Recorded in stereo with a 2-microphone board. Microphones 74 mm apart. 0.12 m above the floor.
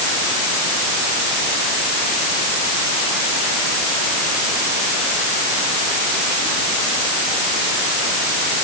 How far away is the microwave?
I don't hear a microwave.